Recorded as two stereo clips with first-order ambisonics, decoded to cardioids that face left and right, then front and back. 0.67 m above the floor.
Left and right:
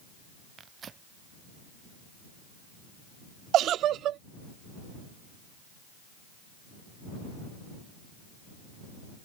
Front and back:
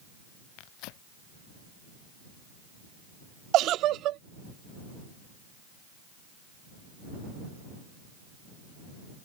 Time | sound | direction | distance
0.6 | tearing paper | 25° right | ?
3.5 | a giggle | 135° right | ?